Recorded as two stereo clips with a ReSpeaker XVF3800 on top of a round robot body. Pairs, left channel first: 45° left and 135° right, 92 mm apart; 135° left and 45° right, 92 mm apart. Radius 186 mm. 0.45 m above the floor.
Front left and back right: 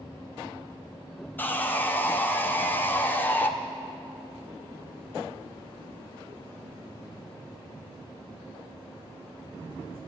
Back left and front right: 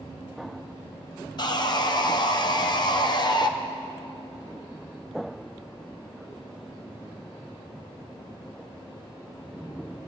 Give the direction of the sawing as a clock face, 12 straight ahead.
8 o'clock.